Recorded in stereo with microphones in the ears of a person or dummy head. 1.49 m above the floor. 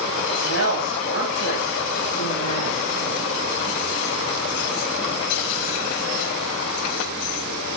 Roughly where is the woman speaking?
Left.